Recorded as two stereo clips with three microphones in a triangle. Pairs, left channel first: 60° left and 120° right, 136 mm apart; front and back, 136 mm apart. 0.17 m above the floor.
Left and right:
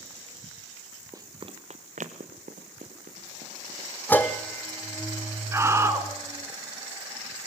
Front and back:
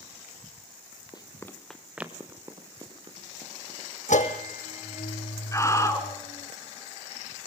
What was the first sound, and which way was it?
Running footsteps, 55° right.